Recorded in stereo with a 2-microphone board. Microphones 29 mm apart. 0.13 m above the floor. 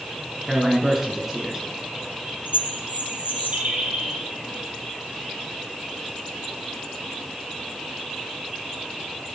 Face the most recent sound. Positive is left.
turn(degrees=-55)  # may be behind; listen again after turning